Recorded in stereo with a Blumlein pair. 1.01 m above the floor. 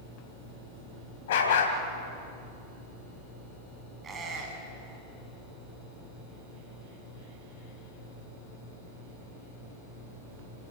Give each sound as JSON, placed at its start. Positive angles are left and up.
{"t": 1.3, "sound": "a dog barking", "azimuth_deg": 60, "distance_m": 3.0}
{"t": 4.0, "sound": "a squeak", "azimuth_deg": -20, "distance_m": 5.0}